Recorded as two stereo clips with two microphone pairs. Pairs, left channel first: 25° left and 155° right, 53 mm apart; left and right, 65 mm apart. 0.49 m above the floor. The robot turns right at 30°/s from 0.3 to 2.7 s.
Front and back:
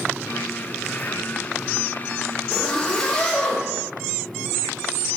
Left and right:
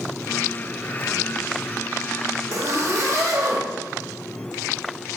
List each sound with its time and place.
2.5 s a zipper: 60° right, 0.7 m; by 3.6 s 55° right, 0.7 m